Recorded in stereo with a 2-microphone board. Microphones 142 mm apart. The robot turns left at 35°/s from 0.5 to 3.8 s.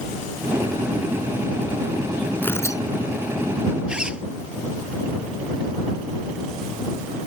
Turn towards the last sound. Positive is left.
turn(degrees=-5)  # may be behind; listen again after turning